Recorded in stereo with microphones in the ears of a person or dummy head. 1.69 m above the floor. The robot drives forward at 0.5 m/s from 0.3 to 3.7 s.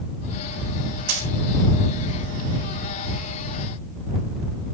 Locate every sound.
1.1 s a dropped coin: 55° right (ahead or behind), 3.5 m